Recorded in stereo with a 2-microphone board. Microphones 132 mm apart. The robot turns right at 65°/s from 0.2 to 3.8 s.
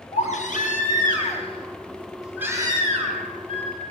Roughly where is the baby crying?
Ahead left.